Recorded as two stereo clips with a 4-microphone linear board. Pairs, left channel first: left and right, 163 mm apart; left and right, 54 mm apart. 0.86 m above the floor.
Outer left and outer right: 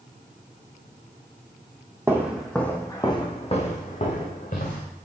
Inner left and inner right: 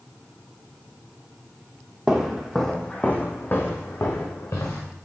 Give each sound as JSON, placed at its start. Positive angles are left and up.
{"t": 2.1, "sound": "footsteps", "side_deg": -15, "distance_m": 1.3}